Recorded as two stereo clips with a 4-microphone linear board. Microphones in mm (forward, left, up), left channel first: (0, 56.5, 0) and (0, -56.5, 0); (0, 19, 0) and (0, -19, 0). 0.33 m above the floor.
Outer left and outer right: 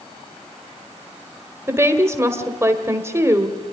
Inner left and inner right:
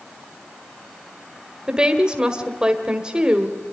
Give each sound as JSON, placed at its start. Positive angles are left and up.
{"t": 1.7, "sound": "a woman speaking", "side_deg": -20, "distance_m": 1.5}